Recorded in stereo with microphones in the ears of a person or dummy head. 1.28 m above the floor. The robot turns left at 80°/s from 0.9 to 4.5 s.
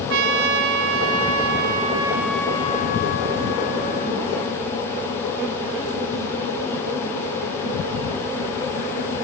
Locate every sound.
0.1 s a trumpet: 70° right, 1.8 m; by 4.6 s 5° left, 1.8 m